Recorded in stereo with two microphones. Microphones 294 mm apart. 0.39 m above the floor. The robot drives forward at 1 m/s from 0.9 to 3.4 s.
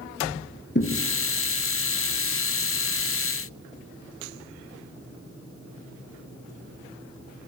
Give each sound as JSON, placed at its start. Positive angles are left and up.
{"t": 0.8, "sound": "a thud", "side_deg": 40, "distance_m": 2.5}